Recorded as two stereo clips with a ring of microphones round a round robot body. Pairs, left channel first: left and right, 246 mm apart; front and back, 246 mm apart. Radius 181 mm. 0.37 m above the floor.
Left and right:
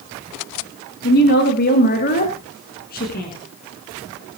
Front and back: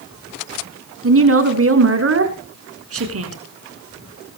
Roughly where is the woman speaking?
Behind left.